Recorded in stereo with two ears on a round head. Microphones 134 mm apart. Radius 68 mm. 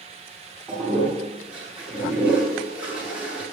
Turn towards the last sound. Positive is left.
turn(degrees=-5)  # may be behind; listen again after turning